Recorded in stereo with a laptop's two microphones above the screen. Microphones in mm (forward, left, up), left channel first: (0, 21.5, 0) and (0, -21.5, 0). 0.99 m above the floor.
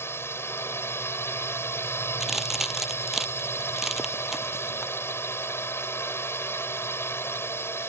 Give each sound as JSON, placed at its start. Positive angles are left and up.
{"t": 0.0, "sound": "a drone", "side_deg": 75}
{"t": 2.2, "sound": "a crack", "side_deg": -5}